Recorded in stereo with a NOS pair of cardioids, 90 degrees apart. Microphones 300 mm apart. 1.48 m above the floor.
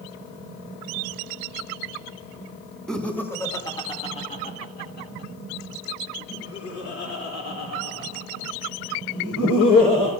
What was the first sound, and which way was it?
Laughter, straight ahead.